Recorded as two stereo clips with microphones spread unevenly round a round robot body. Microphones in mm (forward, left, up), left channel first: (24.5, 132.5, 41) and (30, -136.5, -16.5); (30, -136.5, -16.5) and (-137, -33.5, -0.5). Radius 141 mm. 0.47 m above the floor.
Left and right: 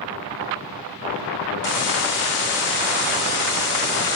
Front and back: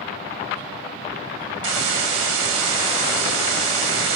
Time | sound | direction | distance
1.6 | a hiss | 140° left | 0.6 m